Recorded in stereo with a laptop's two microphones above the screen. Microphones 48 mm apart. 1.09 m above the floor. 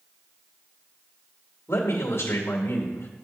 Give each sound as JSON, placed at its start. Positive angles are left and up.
{"t": 1.7, "sound": "a man speaking", "side_deg": 60, "distance_m": 2.0}